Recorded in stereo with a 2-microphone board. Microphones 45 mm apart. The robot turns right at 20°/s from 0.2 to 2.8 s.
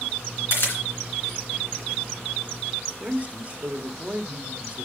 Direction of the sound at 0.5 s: 60° left (ahead or behind).